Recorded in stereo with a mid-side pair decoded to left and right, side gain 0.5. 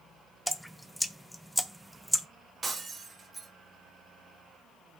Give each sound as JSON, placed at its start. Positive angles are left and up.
{"t": 0.5, "sound": "dripping", "azimuth_deg": 0, "distance_m": 0.8}
{"t": 2.6, "sound": "breaking glass", "azimuth_deg": -30, "distance_m": 2.5}